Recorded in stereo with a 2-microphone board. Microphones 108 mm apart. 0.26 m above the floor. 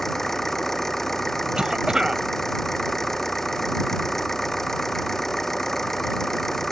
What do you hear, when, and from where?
0.0 s an engine running: 5° left (ahead or behind)
1.6 s a cough: 5° right (ahead or behind)